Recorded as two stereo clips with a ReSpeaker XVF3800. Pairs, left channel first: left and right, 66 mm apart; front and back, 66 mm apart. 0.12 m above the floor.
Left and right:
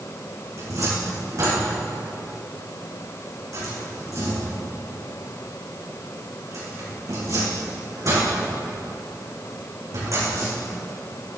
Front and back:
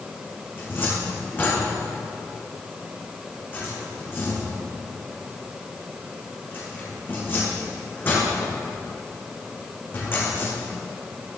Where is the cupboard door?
55° right, 5 m.